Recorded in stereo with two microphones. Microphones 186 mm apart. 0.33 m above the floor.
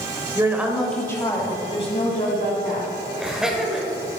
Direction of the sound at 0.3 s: 20° right (ahead or behind).